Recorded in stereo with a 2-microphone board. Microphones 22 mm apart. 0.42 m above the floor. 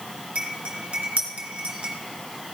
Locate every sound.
0.3 s cutlery clinking: 55° right (ahead or behind), 3.5 m